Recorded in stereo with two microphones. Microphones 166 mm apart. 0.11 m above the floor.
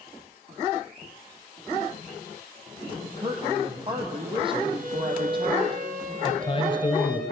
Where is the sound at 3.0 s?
30° right (ahead or behind), 3.5 m.